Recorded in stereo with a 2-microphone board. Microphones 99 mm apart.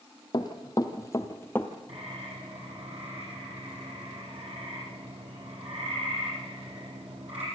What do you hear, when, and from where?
0.3 s running footsteps: 45° left (ahead or behind), 2.0 m; by 1.7 s 15° left (ahead or behind), 1.4 m
1.9 s a bird: 85° right, 9.5 m